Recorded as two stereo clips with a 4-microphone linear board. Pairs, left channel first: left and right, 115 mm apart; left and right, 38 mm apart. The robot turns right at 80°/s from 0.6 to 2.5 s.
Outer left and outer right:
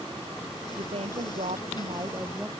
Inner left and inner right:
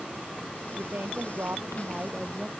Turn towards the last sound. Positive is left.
turn(degrees=5)